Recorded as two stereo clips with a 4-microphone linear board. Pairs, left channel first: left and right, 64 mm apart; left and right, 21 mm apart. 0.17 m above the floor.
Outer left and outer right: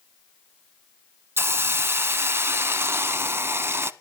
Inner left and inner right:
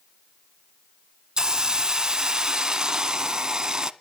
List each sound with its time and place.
1.4 s a hiss: 35° right (ahead or behind), 0.6 m